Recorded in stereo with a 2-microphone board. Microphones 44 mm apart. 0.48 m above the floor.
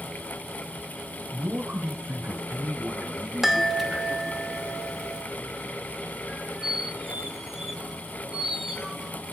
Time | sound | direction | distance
1.3 | a man speaking | 65° right (ahead or behind) | 2 m
3.4 | a chime | 5° right (ahead or behind) | 0.8 m
6.3 | a squeak | 10° right (ahead or behind) | 1.4 m